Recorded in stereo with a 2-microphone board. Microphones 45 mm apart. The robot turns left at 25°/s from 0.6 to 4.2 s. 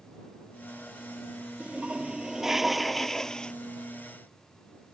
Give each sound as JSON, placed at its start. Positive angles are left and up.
{"t": 1.6, "sound": "a toilet flushing", "azimuth_deg": -150}